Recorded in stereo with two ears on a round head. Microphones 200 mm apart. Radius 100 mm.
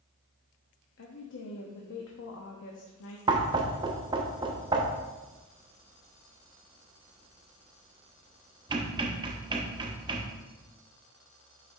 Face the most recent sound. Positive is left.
turn(degrees=-20)  # may be behind; listen again after turning